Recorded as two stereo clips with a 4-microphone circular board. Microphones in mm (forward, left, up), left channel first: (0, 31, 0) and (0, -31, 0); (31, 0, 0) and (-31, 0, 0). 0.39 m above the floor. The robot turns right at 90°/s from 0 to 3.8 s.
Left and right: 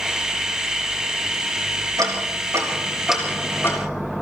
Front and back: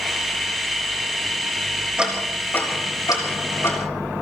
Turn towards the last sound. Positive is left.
turn(degrees=55)